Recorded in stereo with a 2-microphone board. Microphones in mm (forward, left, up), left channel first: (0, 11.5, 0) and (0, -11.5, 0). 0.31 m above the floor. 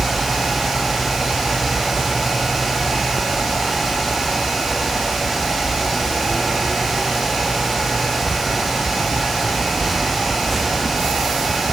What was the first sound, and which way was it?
Only background noise.